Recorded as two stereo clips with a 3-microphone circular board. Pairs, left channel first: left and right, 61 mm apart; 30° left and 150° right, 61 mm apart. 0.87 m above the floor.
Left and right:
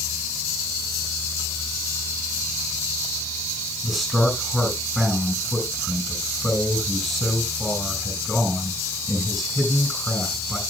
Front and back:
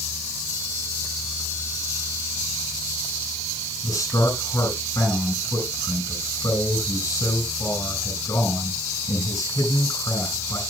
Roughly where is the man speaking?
Ahead.